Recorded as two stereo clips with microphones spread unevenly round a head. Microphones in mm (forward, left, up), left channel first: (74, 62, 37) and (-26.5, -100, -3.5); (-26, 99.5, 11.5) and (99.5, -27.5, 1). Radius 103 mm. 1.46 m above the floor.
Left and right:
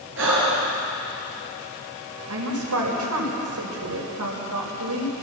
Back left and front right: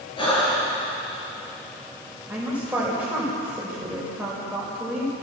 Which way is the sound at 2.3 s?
130° right.